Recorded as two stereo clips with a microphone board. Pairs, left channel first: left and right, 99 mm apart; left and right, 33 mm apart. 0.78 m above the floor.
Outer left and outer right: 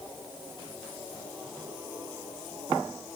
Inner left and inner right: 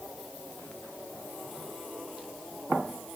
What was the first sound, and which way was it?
Only background noise.